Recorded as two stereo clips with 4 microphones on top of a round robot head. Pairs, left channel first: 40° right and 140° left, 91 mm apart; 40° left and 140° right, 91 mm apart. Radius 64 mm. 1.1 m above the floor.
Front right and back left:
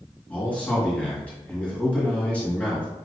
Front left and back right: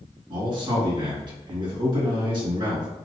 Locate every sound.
0.3 s a man speaking: 115° right, 1.8 m